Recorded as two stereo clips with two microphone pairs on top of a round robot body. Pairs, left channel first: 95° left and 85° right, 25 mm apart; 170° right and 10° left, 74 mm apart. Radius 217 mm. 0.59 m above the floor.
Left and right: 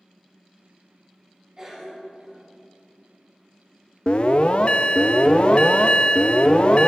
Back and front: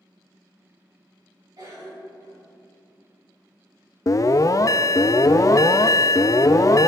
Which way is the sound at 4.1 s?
140° left.